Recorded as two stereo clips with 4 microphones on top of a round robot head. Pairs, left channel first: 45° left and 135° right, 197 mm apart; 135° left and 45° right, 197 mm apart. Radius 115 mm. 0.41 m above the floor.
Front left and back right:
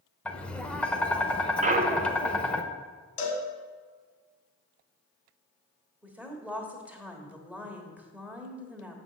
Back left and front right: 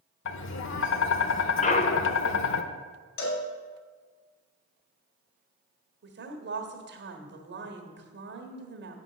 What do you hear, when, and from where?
0.2 s tapping: 130° left, 0.7 m
1.6 s a clunk: straight behind, 0.7 m
3.2 s a cowbell: 95° left, 1.7 m
6.0 s a woman speaking: 55° right, 1.5 m